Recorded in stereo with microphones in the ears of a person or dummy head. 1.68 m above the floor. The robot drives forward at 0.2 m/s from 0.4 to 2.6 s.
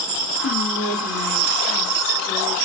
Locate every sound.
0.4 s whispering: 75° left (ahead or behind), 2 m; by 2.5 s 65° left (ahead or behind), 2.5 m